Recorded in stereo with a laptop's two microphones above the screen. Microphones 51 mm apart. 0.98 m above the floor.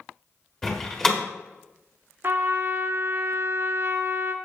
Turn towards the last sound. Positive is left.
turn(degrees=-55)  # may be behind; listen again after turning